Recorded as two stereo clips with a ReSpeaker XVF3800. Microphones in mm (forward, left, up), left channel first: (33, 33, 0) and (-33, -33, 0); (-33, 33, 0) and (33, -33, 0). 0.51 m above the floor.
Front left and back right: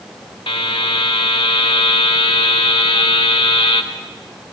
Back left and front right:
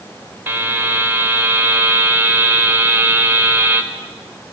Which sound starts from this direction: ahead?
A buzzer, at 0.5 s.